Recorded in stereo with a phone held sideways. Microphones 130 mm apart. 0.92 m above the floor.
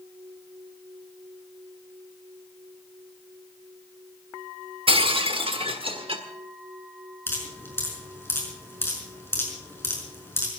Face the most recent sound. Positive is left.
turn(degrees=20)  # may be behind; listen again after turning